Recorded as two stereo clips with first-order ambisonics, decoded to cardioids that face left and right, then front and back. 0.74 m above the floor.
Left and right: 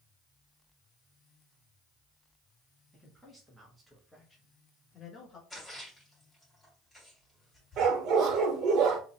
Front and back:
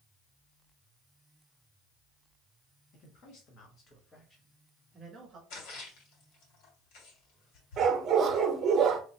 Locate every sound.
2.9 s a man speaking: 10° right, 1.4 m; by 5.4 s 140° left, 1.2 m
5.5 s a splash: straight ahead, 1.9 m
7.8 s a dog barking: 125° right, 0.8 m